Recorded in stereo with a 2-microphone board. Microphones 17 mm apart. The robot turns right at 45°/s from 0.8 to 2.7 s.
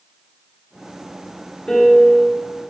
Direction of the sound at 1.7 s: 65° left.